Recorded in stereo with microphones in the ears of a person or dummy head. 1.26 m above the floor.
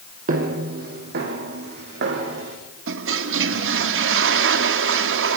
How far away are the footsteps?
About 2.5 m.